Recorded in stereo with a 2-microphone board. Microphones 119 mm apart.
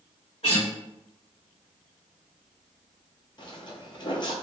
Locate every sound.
0.4 s a guitar: 55° left (ahead or behind), 1.5 m
3.4 s footsteps: 45° left (ahead or behind), 0.6 m